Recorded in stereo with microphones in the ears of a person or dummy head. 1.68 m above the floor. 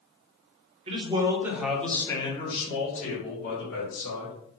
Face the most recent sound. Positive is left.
turn(degrees=65)  # may be behind; listen again after turning